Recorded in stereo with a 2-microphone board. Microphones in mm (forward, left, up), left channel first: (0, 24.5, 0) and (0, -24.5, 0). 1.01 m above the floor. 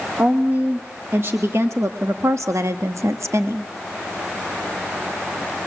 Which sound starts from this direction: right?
A woman speaking, at 0.2 s.